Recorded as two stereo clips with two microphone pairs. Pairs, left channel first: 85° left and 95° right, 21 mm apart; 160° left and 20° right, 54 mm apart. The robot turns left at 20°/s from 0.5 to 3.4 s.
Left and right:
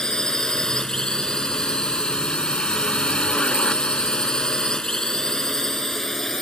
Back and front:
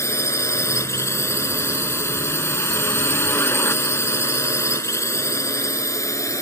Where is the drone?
140° left; by 6.4 s 160° left.